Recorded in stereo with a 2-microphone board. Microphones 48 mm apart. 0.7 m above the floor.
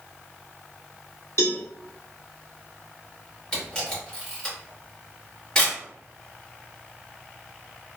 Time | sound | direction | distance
1.4 | a cowbell | 75° left (ahead or behind) | 0.7 m
3.5 | a camera shutter | 15° left (ahead or behind) | 1.3 m